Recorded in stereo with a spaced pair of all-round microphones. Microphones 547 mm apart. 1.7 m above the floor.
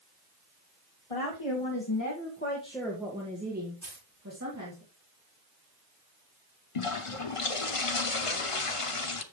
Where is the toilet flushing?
65° left (ahead or behind), 0.9 m.